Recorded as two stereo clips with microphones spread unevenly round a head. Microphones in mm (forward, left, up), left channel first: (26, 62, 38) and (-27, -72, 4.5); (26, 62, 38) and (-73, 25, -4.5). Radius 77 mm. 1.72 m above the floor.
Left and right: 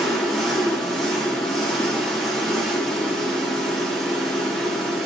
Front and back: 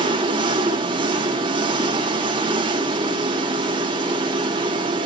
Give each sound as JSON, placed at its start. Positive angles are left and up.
{"t": 0.0, "sound": "an engine running", "azimuth_deg": 155, "distance_m": 3.5}